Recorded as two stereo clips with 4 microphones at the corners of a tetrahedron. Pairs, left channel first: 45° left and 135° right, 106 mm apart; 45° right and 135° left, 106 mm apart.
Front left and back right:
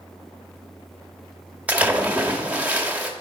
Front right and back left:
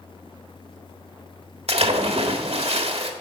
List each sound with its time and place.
1.7 s a splash: 150° left, 1.6 m